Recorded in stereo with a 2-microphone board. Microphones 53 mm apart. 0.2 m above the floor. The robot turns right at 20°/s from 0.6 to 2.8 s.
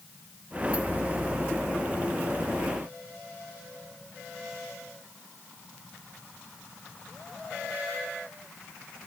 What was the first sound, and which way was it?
Only background noise.